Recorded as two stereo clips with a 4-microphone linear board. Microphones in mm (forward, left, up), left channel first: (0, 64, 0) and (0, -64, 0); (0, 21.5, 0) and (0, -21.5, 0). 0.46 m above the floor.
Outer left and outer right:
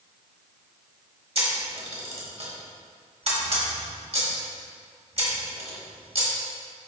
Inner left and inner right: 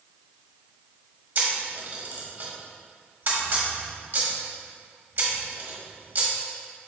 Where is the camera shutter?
55° right (ahead or behind), 1.9 m.